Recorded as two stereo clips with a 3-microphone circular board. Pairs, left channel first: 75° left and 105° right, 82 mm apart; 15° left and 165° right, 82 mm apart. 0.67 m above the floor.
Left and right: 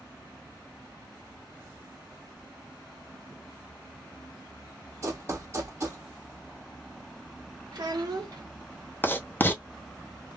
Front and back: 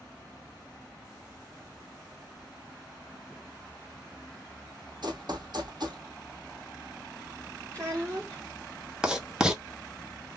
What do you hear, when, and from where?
5.0 s running footsteps: 155° right, 1.5 m
7.7 s a child speaking: 105° right, 0.8 m
9.0 s writing: 120° left, 0.7 m